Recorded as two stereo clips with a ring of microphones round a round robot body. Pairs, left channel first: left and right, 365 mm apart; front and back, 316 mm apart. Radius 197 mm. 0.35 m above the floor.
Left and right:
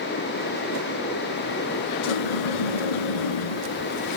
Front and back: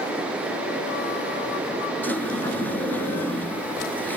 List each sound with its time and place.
2.0 s a sliding door: 85° left, 1.0 m